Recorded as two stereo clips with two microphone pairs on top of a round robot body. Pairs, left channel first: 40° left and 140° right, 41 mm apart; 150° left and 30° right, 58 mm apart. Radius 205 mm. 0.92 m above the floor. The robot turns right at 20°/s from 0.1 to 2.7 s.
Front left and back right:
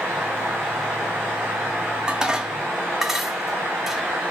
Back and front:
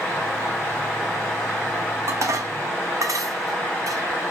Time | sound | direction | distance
2.1 | dishes clattering | 70° right | 1.3 m